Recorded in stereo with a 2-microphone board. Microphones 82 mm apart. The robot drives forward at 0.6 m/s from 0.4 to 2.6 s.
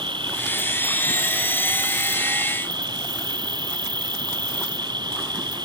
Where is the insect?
75° right (ahead or behind); by 5.7 s 65° right (ahead or behind).